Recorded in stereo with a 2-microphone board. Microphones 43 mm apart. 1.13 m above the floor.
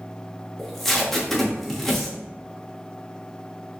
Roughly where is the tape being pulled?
Centre.